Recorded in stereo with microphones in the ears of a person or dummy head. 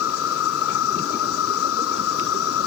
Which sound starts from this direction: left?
An insect, at 0.0 s.